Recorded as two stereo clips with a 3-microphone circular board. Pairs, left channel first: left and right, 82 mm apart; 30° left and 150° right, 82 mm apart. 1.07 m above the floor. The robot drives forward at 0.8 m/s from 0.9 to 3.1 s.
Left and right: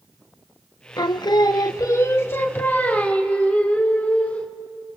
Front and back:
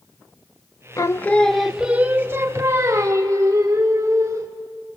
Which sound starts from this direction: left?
Singing, at 1.0 s.